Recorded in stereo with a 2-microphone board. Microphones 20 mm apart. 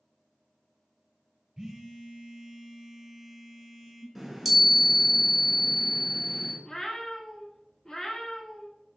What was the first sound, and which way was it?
A phone buzzing, 20° right (ahead or behind).